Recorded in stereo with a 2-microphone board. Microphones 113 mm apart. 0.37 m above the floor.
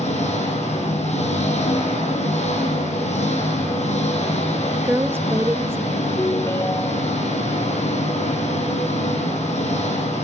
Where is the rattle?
No rattle in this recording.